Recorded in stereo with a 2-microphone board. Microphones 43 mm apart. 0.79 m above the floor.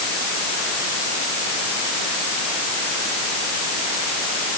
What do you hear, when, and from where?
Only background noise.